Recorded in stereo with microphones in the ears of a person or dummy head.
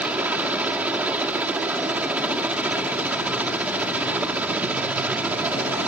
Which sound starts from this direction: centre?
A helicopter, at 0.0 s.